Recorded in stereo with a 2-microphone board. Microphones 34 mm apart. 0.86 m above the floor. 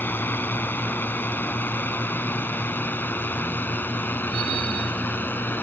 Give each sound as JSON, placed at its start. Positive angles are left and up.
{"t": 0.0, "sound": "a drone", "side_deg": 75}